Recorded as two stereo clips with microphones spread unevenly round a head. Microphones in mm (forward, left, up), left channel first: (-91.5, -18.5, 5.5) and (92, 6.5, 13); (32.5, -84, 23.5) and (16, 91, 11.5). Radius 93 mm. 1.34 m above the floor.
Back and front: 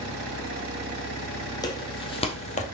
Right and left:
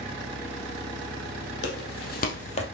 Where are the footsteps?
105° right, 3 m; by 2.6 s 130° right, 1.9 m.